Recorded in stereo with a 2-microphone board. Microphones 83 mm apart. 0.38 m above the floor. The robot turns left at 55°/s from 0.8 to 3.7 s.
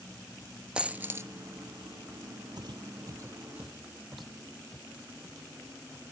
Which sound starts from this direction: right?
Footsteps, at 2.6 s.